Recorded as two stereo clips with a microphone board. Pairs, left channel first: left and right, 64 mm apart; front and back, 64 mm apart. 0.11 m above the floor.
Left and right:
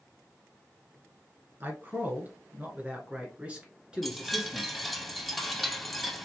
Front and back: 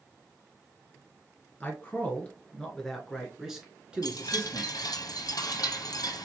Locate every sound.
1.6 s a man speaking: 50° right, 2.0 m; by 5.0 s straight behind, 1.7 m
4.0 s a chime: straight ahead, 0.7 m